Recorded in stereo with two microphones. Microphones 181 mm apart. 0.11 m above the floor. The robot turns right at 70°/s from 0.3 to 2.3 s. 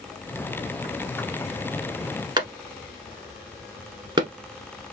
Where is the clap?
25° right (ahead or behind), 1.0 m.